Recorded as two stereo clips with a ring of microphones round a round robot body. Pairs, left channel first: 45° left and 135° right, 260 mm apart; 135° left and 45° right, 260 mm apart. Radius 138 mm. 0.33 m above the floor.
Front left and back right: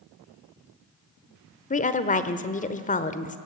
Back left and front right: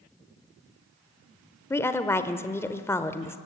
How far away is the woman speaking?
About 1.0 m.